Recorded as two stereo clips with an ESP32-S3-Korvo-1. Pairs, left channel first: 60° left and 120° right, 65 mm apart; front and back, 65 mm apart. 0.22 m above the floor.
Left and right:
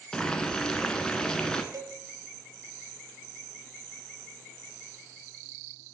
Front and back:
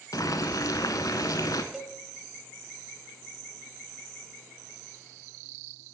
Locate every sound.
0.1 s boiling: 15° right, 0.6 m
1.7 s a cowbell: 95° right, 0.5 m